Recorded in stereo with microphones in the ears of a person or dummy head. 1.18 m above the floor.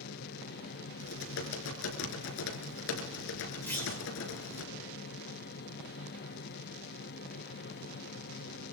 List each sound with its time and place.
0.0 s a fan: 45° left (ahead or behind), 1.1 m
1.0 s typing on a keyboard: 65° left (ahead or behind), 3.5 m
3.7 s a clunk: 5° left (ahead or behind), 4 m